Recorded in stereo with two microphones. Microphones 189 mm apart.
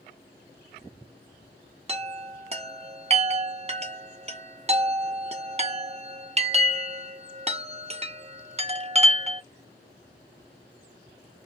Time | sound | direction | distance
1.9 | a chime | 35° right (ahead or behind) | 0.5 m